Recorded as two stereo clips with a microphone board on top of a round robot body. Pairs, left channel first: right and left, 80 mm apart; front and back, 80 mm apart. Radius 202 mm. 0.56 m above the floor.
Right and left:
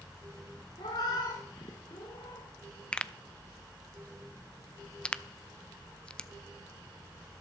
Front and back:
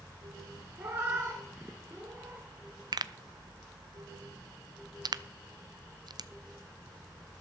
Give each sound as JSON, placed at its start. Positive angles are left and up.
{"t": 0.8, "sound": "a cat meowing", "azimuth_deg": -120, "distance_m": 0.5}
{"t": 2.9, "sound": "a pop", "azimuth_deg": -165, "distance_m": 0.6}